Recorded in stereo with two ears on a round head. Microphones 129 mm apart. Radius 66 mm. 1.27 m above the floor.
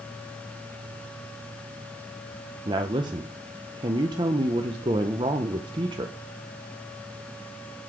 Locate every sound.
2.6 s a woman speaking: 30° right (ahead or behind), 0.6 m